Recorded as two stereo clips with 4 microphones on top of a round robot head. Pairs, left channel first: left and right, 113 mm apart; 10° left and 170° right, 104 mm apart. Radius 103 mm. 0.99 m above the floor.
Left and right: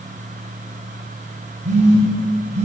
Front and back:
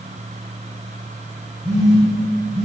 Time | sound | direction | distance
1.6 | a phone buzzing | 75° right | 3 m